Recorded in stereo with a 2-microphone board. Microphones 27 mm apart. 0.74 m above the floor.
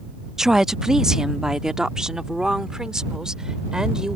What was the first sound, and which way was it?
A woman speaking, 20° right (ahead or behind).